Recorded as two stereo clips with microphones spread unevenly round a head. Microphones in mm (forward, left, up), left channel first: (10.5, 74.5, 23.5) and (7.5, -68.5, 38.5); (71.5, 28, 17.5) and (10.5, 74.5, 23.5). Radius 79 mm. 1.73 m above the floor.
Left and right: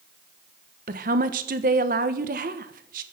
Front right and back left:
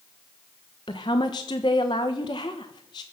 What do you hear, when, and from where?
0.9 s a woman speaking: 85° right, 1.1 m